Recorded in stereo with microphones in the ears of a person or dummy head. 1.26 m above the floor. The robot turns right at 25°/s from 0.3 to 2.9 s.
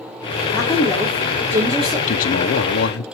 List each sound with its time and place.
0.5 s a woman speaking: 170° left, 3.5 m; by 2.0 s 155° right, 3.5 m
2.1 s a man speaking: 40° left (ahead or behind), 0.6 m; by 3.0 s 55° left (ahead or behind), 0.6 m